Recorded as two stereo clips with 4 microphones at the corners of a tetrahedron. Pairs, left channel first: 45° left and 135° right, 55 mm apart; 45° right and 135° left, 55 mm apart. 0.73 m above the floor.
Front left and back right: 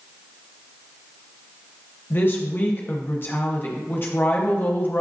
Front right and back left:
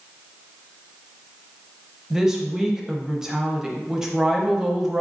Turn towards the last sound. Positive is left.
turn(degrees=60)